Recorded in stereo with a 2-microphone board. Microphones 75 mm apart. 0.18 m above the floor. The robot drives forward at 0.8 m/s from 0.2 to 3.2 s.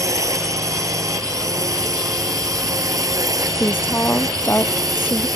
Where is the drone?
50° right (ahead or behind); by 5.4 s 55° right (ahead or behind).